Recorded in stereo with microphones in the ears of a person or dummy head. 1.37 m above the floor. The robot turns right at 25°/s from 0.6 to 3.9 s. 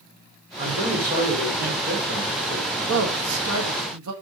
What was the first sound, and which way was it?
A man speaking, 140° right.